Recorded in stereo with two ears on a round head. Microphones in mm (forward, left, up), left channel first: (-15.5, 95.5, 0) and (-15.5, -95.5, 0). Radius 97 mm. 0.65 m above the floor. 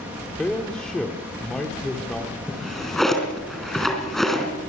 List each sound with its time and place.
0.4 s a man speaking: 5° left (ahead or behind), 1.7 m
2.5 s a drawer: centre (ahead or behind), 3 m